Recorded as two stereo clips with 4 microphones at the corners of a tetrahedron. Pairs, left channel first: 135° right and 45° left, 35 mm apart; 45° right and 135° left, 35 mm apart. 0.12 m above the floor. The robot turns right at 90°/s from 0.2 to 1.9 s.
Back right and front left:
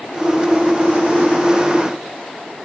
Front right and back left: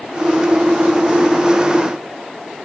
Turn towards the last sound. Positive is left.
No sound to turn to.